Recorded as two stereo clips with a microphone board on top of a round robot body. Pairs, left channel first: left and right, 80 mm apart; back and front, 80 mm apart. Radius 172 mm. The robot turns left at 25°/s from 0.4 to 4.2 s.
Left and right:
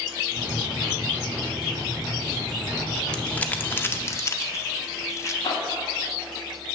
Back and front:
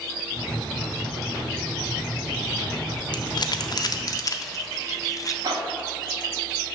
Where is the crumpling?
170° left, 0.7 m; by 5.3 s 140° left, 0.7 m.